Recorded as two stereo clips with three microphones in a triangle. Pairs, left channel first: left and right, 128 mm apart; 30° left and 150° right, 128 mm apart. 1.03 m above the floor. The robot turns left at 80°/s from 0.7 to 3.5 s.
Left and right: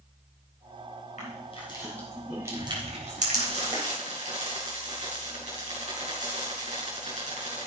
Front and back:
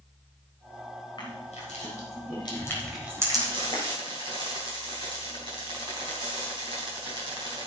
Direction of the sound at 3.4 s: 95° right.